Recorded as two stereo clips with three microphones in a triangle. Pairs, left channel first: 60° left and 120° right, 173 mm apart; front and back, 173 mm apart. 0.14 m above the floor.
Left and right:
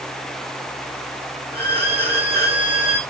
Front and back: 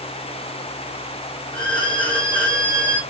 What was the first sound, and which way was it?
A violin, 60° right.